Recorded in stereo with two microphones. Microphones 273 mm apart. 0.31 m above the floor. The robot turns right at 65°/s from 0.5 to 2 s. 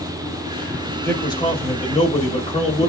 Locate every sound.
1.0 s a man speaking: 10° left (ahead or behind), 0.8 m; by 2.9 s 20° left (ahead or behind), 0.8 m